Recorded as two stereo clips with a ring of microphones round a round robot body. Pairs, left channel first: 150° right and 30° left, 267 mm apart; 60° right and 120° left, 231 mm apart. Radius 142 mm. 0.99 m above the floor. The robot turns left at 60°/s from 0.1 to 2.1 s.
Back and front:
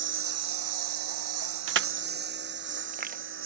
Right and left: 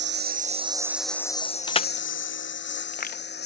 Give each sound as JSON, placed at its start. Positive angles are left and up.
{"t": 0.0, "sound": "a lawn mower", "azimuth_deg": 80}
{"t": 1.7, "sound": "crushing", "azimuth_deg": 5}